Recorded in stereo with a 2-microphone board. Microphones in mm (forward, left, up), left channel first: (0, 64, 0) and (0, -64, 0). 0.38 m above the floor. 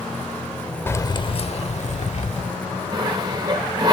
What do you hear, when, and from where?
0.9 s keys jangling: 20° left (ahead or behind), 0.6 m; by 2.5 s 65° left (ahead or behind), 1.4 m
2.9 s sawing: 30° right (ahead or behind), 8 m